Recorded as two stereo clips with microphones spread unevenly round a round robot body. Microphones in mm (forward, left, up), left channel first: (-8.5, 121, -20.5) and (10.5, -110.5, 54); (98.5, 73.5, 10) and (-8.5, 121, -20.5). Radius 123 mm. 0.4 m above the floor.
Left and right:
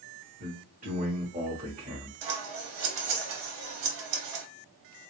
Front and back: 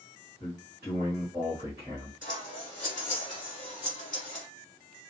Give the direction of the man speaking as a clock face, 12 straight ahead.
5 o'clock.